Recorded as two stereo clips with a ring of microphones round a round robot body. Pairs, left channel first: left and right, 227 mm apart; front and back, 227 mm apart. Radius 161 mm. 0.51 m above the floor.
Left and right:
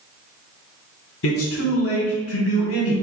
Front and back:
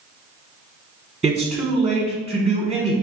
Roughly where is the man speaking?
Left.